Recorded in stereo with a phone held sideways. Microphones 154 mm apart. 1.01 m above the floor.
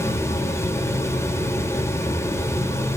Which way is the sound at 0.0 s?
15° left (ahead or behind).